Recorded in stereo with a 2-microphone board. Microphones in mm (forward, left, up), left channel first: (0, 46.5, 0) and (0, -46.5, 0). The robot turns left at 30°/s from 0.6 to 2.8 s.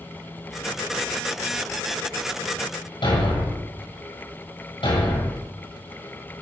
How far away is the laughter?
I don't hear laughter.